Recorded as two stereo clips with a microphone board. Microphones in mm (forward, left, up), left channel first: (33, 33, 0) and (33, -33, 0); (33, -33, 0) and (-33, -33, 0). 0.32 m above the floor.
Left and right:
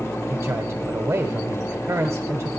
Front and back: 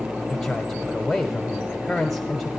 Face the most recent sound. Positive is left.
turn(degrees=-85)